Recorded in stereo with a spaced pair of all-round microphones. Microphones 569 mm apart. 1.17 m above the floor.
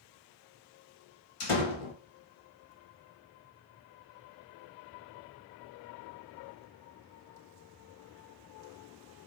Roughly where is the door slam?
Left.